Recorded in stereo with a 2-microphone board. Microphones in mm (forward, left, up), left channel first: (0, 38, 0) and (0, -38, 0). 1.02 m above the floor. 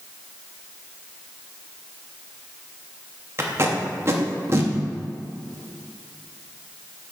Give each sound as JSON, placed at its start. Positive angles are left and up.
{"t": 3.4, "sound": "tape being pulled", "side_deg": -35, "distance_m": 1.0}